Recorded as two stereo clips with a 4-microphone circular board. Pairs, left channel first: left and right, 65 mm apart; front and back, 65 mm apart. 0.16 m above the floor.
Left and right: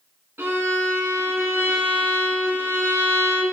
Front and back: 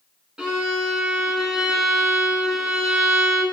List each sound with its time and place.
0.4 s a violin: 110° right, 0.7 m